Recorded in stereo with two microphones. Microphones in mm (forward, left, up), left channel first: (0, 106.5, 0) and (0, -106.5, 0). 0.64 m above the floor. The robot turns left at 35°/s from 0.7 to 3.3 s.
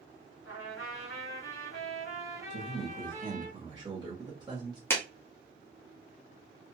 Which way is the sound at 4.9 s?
10° left (ahead or behind).